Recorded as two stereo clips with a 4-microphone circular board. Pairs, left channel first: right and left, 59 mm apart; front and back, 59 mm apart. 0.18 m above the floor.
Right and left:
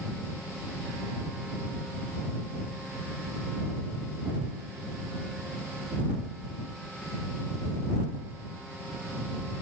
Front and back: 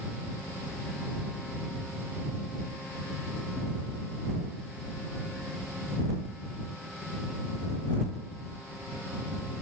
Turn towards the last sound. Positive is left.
No sound to turn to.